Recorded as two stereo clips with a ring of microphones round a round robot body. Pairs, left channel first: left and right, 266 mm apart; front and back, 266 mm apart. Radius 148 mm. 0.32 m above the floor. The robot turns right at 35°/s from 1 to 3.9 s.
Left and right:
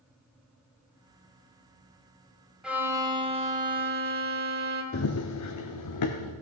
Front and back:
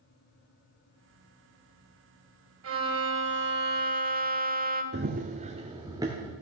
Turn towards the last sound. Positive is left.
turn(degrees=100)